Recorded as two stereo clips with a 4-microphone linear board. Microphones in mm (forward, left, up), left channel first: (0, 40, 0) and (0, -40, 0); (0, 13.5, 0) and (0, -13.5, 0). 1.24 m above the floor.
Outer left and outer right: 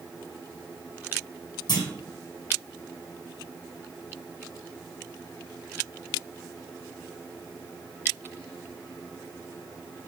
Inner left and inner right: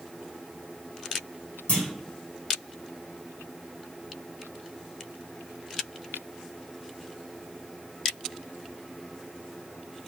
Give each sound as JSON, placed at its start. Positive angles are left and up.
{"t": 1.7, "sound": "a clunk", "side_deg": 60, "distance_m": 1.6}